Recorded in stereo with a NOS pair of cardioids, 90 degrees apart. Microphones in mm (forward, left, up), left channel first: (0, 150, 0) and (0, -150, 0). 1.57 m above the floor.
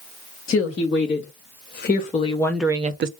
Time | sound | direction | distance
0.5 | a woman speaking | 45° left | 2.5 m